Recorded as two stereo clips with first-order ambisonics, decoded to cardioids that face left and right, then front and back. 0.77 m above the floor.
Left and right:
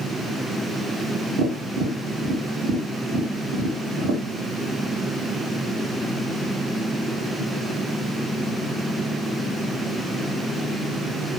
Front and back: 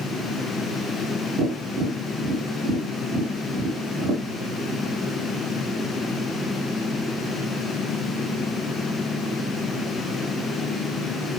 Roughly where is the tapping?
Behind right.